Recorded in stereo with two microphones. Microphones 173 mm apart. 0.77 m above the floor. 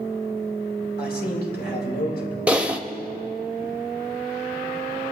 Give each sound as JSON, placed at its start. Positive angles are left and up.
{"t": 1.0, "sound": "a man speaking", "side_deg": 65, "distance_m": 3.0}
{"t": 2.5, "sound": "typing on a keyboard", "side_deg": -5, "distance_m": 0.8}